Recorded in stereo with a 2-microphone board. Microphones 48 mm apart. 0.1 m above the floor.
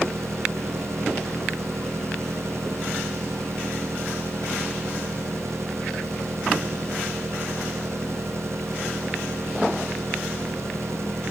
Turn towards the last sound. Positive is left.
turn(degrees=-65)  # may be behind; listen again after turning